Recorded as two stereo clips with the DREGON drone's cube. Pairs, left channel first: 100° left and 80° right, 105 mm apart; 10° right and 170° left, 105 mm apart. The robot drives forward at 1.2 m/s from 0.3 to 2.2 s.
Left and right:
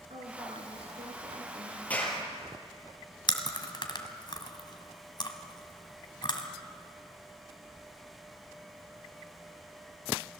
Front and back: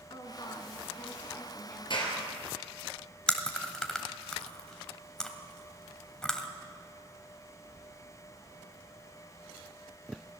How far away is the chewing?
About 1.8 m.